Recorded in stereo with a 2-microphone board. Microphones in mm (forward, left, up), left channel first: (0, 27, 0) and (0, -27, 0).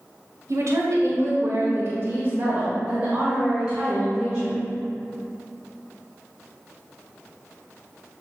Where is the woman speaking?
70° right (ahead or behind), 2 m; by 4.6 s 5° left (ahead or behind), 3 m.